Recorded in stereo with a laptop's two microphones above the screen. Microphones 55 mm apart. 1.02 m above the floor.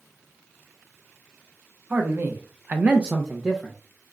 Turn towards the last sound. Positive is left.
turn(degrees=-5)  # may be behind; listen again after turning